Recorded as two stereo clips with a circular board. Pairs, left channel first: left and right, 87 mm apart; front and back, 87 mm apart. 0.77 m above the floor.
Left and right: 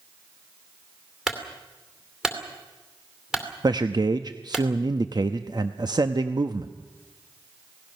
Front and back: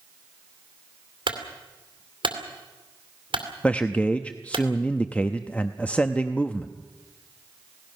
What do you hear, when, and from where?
1.3 s a clunk: 175° right, 2.5 m
3.6 s a man speaking: 75° right, 0.7 m